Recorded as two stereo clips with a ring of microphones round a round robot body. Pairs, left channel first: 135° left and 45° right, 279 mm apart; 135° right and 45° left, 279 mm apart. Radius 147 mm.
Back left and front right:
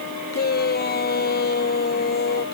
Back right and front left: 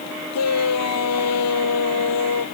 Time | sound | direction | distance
0.3 | a shout | 170° right | ?